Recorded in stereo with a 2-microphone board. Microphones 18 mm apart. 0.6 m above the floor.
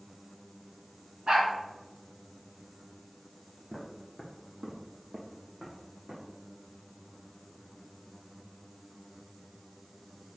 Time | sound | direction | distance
1.3 | a dog barking | 60° right (ahead or behind) | 2.0 m
3.7 | footsteps | 35° right (ahead or behind) | 1.8 m